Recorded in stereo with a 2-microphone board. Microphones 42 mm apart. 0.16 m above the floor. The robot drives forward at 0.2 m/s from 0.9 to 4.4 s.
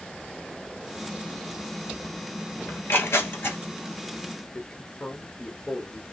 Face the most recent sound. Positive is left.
turn(degrees=30)  # may be behind; listen again after turning